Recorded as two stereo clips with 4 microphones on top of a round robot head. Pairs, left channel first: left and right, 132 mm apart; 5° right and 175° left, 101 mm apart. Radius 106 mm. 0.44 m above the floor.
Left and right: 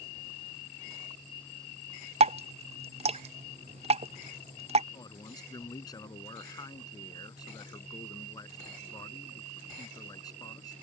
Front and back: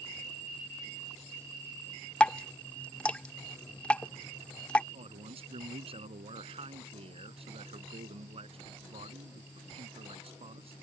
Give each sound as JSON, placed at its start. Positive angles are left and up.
{"t": 2.2, "sound": "dripping", "azimuth_deg": -80}
{"t": 4.9, "sound": "a man speaking", "azimuth_deg": 150}